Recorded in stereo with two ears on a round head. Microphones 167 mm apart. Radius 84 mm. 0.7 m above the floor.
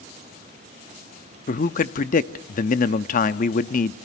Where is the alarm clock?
I don't hear an alarm clock.